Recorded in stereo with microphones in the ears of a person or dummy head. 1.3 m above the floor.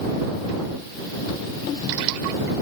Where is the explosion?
I don't hear an explosion.